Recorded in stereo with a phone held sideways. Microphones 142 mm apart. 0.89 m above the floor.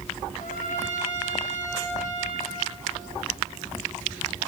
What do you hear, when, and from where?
0.4 s a trumpet: 60° left (ahead or behind), 7.5 m